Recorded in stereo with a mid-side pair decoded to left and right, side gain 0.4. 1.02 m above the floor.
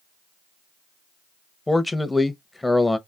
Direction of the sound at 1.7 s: 15° left.